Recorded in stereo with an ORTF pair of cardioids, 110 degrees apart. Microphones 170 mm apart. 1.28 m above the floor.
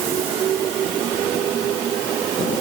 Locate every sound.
Only background noise.